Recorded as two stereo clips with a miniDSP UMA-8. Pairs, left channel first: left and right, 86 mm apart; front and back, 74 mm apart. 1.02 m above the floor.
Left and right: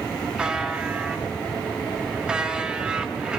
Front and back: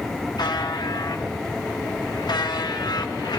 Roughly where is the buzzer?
Ahead.